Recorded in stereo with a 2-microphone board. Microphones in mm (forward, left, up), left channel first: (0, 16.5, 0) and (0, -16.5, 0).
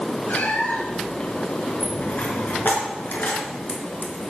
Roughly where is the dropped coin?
Left.